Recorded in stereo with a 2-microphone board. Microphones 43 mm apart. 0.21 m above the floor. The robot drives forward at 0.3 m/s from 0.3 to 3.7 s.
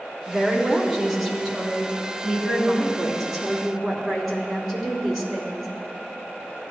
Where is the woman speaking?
Centre (ahead or behind), 2 m.